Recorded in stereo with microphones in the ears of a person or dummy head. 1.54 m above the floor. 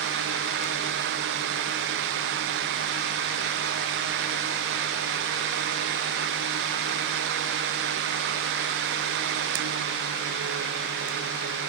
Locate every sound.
Only background noise.